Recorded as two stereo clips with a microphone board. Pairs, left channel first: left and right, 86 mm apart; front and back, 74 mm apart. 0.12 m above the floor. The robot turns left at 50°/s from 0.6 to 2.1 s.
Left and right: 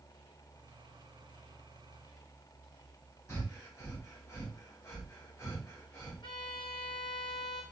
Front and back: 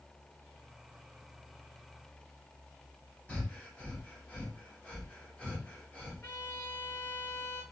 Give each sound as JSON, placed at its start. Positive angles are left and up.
{"t": 3.3, "sound": "breathing", "azimuth_deg": 60, "distance_m": 1.5}
{"t": 6.2, "sound": "a violin", "azimuth_deg": 60, "distance_m": 1.3}